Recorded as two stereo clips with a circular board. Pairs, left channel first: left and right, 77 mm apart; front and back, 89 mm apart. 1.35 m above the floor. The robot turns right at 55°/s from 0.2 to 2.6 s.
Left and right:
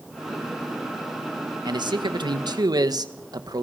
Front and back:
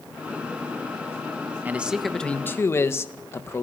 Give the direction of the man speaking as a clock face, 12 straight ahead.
4 o'clock.